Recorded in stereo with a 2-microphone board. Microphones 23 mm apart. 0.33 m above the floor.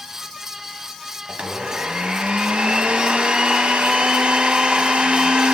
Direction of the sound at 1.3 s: 60° right (ahead or behind).